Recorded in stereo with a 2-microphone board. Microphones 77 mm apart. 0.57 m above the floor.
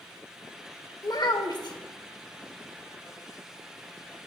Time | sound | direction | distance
1.0 | a child speaking | 65° left (ahead or behind) | 1.1 m